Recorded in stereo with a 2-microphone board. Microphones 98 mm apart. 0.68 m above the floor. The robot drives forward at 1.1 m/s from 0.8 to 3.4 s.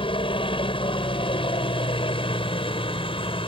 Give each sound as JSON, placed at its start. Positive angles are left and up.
{"t": 0.0, "sound": "a helicopter", "side_deg": 60}